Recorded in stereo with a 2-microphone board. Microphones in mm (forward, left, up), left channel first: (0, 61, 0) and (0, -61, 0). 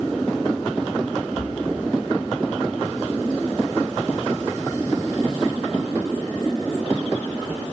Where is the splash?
45° right (ahead or behind), 3.5 m.